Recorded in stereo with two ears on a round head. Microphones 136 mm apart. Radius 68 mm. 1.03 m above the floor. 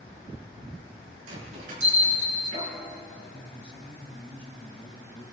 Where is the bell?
55° right (ahead or behind), 6.5 m.